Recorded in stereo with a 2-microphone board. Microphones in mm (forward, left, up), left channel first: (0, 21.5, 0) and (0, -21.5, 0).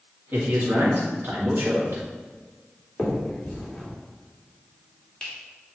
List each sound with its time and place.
0.3 s a man speaking: 50° right (ahead or behind), 1.8 m
3.0 s a finger snap: 15° left (ahead or behind), 2 m